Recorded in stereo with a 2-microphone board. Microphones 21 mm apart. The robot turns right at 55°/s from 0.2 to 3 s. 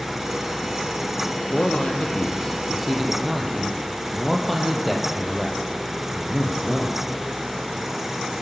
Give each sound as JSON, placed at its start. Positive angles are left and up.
{"t": 1.5, "sound": "a man speaking", "azimuth_deg": 100, "distance_m": 4.5}